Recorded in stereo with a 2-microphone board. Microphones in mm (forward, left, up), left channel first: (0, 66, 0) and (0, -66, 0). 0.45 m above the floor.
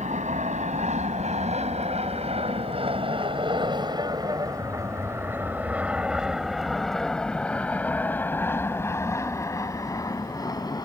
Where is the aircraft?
65° right (ahead or behind); by 10.8 s 30° left (ahead or behind).